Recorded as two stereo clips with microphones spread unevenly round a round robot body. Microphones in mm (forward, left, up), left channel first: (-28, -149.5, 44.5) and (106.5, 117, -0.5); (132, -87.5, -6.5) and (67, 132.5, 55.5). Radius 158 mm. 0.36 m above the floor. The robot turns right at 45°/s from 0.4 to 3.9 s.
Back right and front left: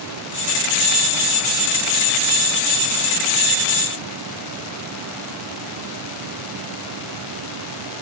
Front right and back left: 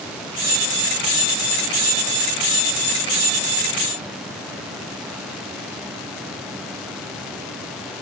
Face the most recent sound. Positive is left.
No sound to turn to.